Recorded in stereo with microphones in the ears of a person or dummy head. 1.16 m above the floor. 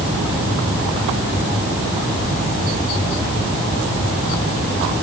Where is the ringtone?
No ringtone in this recording.